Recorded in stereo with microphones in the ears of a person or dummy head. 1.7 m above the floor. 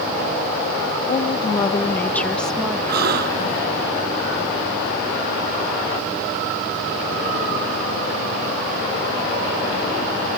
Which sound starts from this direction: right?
A gasp, at 2.9 s.